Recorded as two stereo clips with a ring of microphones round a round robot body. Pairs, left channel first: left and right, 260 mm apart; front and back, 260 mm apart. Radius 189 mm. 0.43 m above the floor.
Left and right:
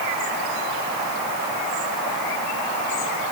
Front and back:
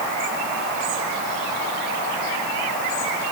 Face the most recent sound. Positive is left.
No sound to turn to.